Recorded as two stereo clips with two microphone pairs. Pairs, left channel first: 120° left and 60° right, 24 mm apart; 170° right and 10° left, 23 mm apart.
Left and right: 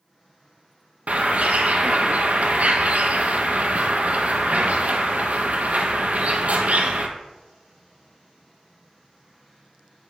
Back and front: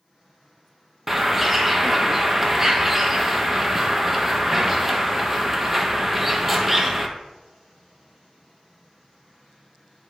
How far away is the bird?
About 0.9 m.